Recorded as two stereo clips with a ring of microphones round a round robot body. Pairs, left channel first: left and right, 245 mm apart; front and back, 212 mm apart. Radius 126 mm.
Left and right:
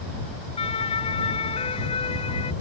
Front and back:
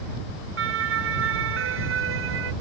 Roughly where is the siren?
Behind.